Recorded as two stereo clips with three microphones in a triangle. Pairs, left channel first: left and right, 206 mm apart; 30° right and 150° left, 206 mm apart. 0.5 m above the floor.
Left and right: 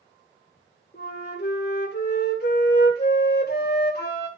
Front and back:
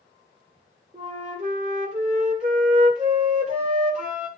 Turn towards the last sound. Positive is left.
turn(degrees=105)